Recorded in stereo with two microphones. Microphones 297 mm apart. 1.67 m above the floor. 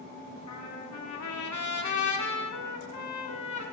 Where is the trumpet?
75° left (ahead or behind), 0.7 m.